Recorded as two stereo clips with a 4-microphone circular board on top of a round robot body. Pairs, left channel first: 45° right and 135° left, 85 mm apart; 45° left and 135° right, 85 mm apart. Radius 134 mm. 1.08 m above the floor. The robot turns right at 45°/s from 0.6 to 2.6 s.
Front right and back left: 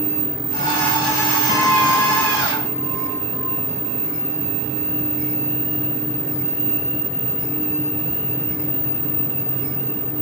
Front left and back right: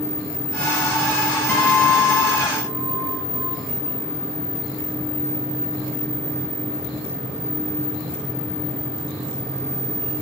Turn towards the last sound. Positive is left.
turn(degrees=20)